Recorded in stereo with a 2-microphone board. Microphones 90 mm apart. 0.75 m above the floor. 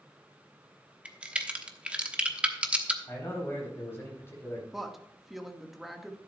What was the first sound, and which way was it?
A crack, 15° right (ahead or behind).